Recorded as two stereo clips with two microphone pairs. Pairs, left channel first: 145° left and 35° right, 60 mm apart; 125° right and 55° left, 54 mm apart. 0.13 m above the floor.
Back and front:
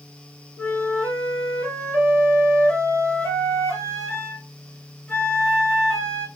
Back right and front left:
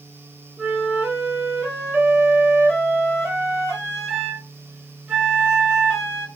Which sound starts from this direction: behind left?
A flute, at 0.6 s.